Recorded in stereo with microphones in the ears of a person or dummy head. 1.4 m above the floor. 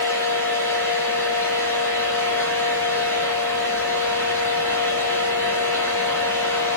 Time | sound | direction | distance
0.0 | a fan | 15° left (ahead or behind) | 0.7 m